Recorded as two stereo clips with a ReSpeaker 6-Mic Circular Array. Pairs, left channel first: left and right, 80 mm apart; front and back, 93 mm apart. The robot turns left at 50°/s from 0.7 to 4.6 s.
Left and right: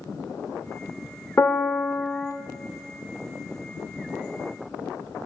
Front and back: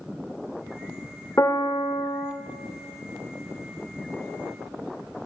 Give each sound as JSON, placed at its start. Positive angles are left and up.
{"t": 1.4, "sound": "a piano", "azimuth_deg": 45, "distance_m": 0.6}